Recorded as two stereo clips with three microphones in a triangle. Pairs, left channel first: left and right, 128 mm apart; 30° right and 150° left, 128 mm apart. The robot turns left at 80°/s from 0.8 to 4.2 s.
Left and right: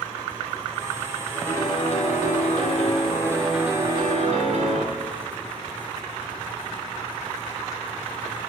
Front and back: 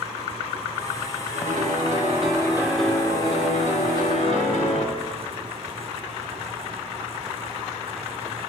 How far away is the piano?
About 3 m.